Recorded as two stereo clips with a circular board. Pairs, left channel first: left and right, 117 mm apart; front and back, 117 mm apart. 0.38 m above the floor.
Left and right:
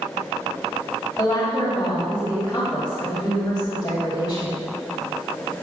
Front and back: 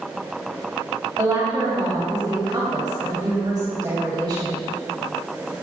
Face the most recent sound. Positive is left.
turn(degrees=130)